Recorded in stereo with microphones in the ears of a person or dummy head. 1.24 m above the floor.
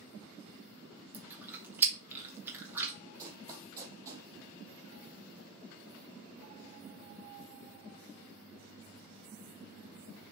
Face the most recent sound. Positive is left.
turn(degrees=-20)  # may be behind; listen again after turning